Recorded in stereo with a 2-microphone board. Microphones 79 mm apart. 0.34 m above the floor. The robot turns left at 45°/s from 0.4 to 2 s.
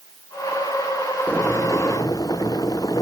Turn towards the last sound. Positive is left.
turn(degrees=130)